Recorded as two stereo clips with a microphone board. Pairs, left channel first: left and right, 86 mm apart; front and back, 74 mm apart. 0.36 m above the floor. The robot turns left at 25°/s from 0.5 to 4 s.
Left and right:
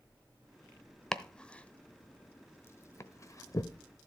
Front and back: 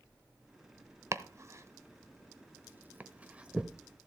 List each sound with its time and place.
1.1 s chopping: 170° left, 0.8 m; by 4.1 s 100° left, 0.8 m